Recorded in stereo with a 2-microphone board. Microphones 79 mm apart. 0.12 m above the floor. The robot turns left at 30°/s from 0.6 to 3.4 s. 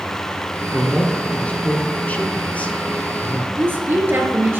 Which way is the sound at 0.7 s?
15° left (ahead or behind).